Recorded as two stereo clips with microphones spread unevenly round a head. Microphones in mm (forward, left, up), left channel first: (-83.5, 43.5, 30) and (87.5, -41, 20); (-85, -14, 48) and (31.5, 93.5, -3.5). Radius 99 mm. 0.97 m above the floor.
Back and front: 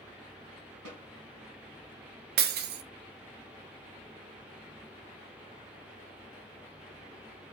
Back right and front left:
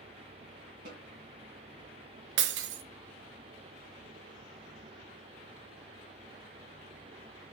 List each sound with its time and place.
0.8 s a snare drum: 10° right, 2.5 m
2.4 s breaking glass: 15° left, 0.7 m